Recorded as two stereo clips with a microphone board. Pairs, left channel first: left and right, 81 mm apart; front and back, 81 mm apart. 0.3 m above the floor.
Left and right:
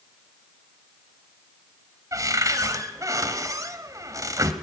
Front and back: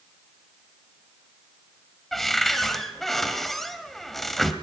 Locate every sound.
2.1 s a cupboard door: 85° right, 1.8 m